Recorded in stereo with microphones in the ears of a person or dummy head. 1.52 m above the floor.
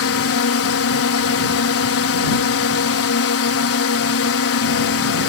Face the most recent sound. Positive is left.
turn(degrees=70)  # may be behind; listen again after turning